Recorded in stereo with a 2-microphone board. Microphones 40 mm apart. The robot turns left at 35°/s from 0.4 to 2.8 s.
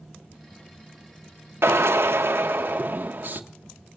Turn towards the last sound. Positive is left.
turn(degrees=-130)